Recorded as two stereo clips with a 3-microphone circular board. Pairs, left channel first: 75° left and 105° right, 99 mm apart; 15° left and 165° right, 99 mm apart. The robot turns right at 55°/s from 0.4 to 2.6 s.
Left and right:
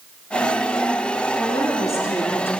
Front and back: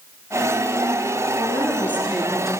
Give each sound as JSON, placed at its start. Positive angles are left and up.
{"t": 1.4, "sound": "a woman speaking", "azimuth_deg": 45, "distance_m": 1.3}